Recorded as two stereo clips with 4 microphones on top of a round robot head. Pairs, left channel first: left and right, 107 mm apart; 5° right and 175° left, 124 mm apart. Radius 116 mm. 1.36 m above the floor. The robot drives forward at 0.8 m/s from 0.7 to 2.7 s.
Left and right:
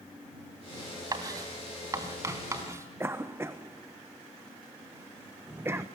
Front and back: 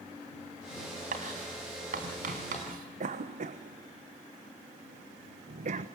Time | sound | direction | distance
1.1 | writing | 145° right | 3.5 m
3.0 | a cough | 160° right | 1.3 m